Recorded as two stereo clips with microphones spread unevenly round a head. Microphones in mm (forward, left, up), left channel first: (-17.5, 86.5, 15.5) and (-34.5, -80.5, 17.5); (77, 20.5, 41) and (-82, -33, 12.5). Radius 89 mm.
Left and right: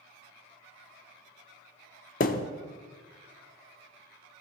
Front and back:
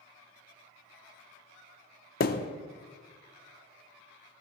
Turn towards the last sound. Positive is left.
turn(degrees=40)